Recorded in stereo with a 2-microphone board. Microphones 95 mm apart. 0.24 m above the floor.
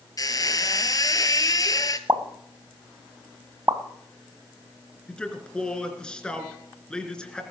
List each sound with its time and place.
0.2 s a squeak: 40° left (ahead or behind), 1.0 m
2.1 s a pop: 40° right (ahead or behind), 1.3 m
5.1 s a man speaking: 10° left (ahead or behind), 3 m